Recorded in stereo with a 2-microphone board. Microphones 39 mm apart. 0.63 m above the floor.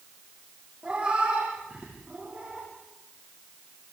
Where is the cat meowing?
30° right (ahead or behind), 6.5 m.